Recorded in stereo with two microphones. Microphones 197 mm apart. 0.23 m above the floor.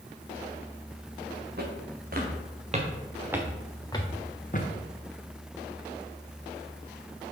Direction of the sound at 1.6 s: 55° right (ahead or behind).